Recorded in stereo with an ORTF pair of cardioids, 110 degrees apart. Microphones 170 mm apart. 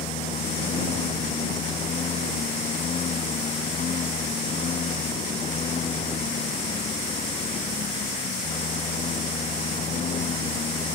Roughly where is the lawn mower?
Ahead left.